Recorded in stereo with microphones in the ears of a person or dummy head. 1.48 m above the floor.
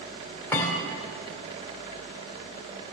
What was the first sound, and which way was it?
A thud, 15° left (ahead or behind).